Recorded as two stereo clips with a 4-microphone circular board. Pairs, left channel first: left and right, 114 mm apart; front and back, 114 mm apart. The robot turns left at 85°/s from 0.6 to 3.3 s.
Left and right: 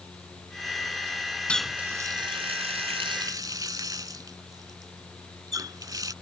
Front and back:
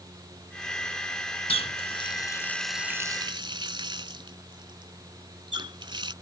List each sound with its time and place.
1.5 s a running tap: 10° left; by 6.1 s 140° right